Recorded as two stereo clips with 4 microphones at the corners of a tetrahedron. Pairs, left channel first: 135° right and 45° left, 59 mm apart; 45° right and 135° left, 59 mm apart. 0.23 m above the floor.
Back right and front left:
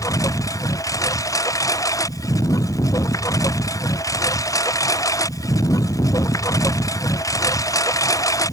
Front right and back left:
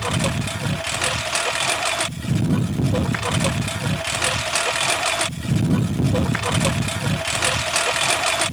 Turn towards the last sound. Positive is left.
turn(degrees=-135)